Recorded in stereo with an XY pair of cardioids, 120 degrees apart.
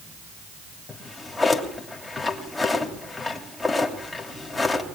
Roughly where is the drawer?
Ahead.